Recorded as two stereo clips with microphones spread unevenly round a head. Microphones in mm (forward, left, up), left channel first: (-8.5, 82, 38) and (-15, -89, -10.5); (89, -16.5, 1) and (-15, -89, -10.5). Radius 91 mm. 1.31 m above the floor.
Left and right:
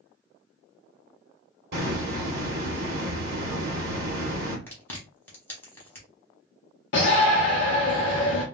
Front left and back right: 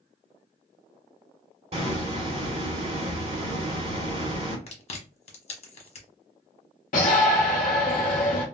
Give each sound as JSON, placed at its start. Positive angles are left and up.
{"t": 1.7, "sound": "a hiss", "azimuth_deg": -125, "distance_m": 1.2}
{"t": 4.7, "sound": "chewing", "azimuth_deg": 0, "distance_m": 1.0}
{"t": 6.9, "sound": "a shout", "azimuth_deg": 60, "distance_m": 0.6}